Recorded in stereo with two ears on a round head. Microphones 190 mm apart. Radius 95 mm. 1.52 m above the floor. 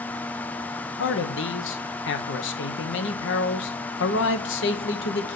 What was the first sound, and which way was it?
A man speaking, 60° left (ahead or behind).